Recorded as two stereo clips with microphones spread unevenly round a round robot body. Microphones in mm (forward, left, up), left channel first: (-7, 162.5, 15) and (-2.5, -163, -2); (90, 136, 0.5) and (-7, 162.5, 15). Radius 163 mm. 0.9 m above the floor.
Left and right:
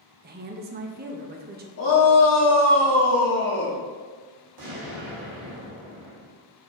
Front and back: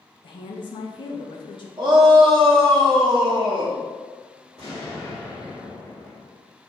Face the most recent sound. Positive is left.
turn(degrees=-100)